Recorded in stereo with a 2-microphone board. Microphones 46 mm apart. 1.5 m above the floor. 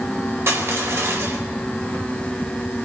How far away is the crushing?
About 4 m.